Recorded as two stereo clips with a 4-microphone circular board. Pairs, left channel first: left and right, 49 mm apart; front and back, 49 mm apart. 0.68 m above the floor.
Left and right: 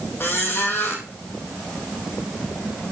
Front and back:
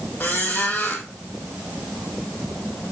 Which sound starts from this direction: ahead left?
A squeak, at 0.2 s.